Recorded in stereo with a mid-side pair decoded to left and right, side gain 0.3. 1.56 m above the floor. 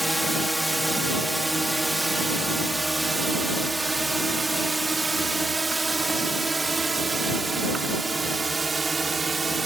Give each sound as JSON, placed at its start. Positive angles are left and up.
{"t": 0.0, "sound": "a drone", "azimuth_deg": -5}